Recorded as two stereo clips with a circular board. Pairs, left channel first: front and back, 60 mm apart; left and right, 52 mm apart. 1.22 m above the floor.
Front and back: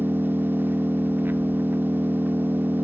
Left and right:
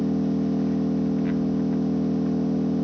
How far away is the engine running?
About 0.9 m.